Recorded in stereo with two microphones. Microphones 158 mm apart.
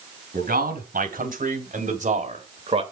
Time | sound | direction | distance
0.3 | a man speaking | 70° right (ahead or behind) | 3 m